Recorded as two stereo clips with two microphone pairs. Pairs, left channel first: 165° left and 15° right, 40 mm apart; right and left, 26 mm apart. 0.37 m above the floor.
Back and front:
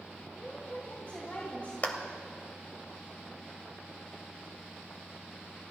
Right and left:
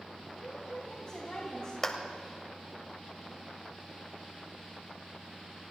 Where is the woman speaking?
145° right, 3 m.